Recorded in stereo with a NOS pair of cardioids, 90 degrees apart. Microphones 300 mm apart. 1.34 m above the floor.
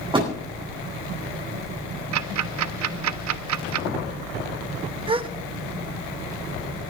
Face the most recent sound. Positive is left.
turn(degrees=-20)